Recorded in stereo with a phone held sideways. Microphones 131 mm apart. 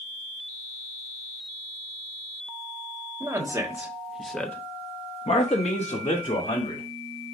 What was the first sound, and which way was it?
A man speaking, 20° right (ahead or behind).